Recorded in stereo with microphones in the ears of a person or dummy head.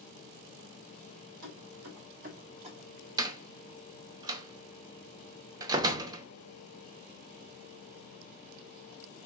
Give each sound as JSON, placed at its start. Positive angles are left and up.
{"t": 1.4, "sound": "keys jangling", "side_deg": -70, "distance_m": 2.0}
{"t": 3.2, "sound": "a door slam", "side_deg": -25, "distance_m": 0.6}